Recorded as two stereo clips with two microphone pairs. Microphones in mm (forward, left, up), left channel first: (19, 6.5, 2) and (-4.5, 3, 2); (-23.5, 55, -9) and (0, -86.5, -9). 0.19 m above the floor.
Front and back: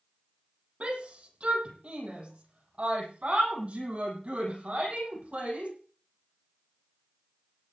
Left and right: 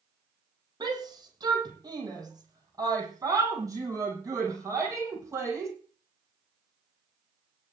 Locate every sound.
0.8 s a shout: 140° right, 7.5 m; by 5.7 s 150° right, 9.5 m